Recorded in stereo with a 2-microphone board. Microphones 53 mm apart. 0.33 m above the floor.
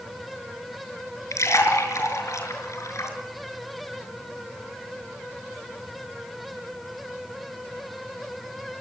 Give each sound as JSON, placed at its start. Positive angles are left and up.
{"t": 1.3, "sound": "a splash", "side_deg": 70, "distance_m": 4.5}